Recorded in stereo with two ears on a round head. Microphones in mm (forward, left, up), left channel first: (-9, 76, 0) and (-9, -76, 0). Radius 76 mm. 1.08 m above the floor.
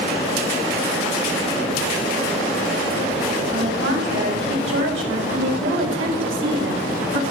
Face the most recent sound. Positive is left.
turn(degrees=-85)